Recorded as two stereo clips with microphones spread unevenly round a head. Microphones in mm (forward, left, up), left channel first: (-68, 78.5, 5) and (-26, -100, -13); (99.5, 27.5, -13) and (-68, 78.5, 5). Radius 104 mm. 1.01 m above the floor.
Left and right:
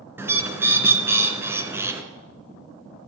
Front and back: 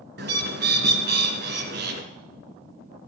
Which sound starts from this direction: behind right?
A bird, at 0.2 s.